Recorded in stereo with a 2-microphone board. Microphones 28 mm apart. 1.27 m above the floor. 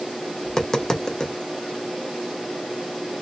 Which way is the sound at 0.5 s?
20° left (ahead or behind).